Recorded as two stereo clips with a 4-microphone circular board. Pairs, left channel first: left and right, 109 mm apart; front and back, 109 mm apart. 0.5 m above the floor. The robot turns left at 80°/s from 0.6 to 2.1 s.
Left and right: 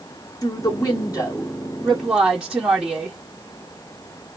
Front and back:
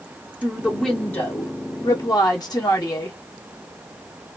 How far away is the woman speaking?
About 0.8 m.